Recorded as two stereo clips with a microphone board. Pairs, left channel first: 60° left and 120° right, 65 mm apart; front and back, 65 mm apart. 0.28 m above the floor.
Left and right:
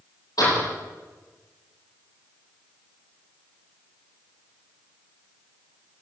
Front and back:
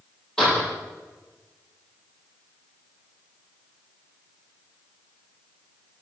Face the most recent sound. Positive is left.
turn(degrees=80)